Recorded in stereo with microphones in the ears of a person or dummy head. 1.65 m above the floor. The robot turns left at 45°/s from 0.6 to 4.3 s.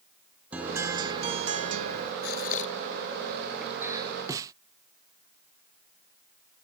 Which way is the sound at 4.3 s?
20° right (ahead or behind).